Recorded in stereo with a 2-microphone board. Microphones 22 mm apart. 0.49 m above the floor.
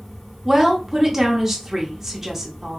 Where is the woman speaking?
15° right (ahead or behind), 0.8 m.